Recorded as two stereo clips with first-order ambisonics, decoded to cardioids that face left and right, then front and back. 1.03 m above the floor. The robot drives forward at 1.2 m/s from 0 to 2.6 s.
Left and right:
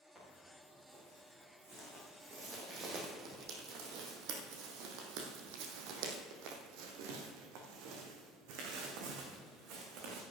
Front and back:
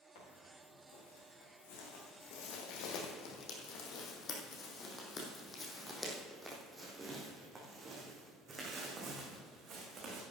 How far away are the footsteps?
About 6 m.